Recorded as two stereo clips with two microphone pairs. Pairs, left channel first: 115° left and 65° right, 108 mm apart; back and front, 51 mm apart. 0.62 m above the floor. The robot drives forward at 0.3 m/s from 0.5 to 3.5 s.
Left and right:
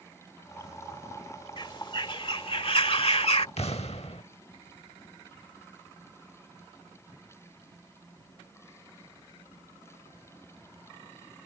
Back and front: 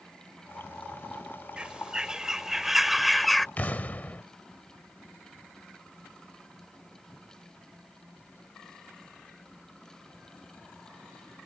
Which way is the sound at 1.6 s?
70° left.